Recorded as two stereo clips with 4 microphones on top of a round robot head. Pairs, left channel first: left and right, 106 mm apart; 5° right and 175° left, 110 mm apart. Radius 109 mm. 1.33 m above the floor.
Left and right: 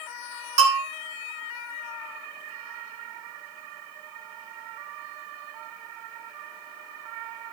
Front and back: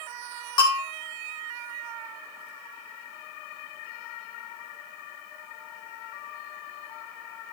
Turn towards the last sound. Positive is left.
turn(degrees=-65)